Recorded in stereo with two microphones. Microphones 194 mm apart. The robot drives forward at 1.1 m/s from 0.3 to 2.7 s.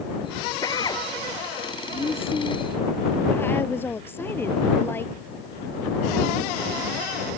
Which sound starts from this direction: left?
A drill, at 0.6 s.